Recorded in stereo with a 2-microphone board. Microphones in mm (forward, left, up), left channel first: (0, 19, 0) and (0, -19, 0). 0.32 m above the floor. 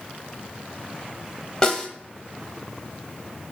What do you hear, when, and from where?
1.6 s a snare drum: 20° left (ahead or behind), 0.9 m